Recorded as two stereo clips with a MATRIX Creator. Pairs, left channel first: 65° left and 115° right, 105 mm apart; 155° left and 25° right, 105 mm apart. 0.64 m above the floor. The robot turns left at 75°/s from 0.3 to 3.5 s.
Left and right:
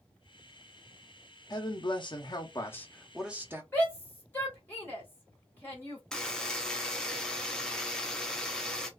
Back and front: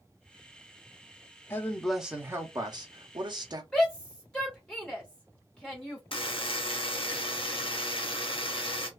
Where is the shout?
90° left, 0.9 m.